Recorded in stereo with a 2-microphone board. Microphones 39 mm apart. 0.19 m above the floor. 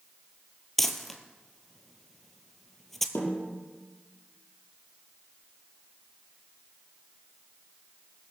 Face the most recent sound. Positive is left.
turn(degrees=70)  # may be behind; listen again after turning